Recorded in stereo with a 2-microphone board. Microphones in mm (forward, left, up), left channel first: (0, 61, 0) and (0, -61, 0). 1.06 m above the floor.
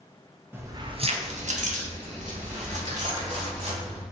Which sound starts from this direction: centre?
Keys jangling, at 0.5 s.